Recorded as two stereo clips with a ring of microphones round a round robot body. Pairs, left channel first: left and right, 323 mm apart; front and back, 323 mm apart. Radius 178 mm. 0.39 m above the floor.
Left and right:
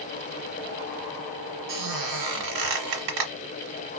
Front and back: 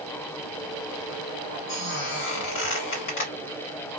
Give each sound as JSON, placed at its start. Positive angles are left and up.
{"t": 1.7, "sound": "a squeak", "azimuth_deg": -60, "distance_m": 1.2}